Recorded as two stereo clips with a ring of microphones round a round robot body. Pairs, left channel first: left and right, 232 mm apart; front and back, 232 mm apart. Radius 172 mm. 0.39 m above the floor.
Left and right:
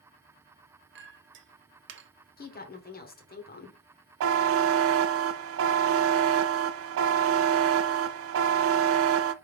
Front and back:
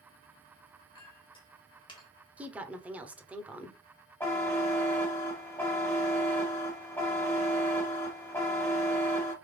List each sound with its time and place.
0.9 s a clink: 70° right, 0.8 m
2.4 s a woman speaking: 100° left, 1.1 m
4.2 s a buzzer: 80° right, 0.5 m